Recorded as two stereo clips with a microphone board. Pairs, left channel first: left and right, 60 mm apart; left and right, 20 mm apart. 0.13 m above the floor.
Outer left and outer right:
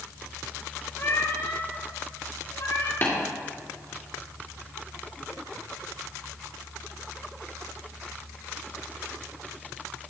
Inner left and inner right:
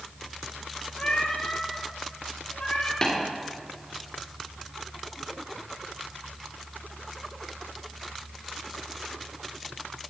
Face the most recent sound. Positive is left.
turn(degrees=40)  # may be behind; listen again after turning